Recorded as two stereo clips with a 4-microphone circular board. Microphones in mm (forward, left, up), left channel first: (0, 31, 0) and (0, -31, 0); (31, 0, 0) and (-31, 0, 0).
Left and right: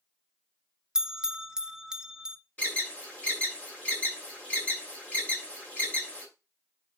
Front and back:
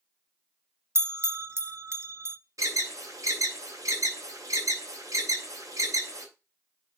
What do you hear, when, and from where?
0.9 s a bell: 165° right, 0.5 m
2.6 s an alarm: 155° left, 2.5 m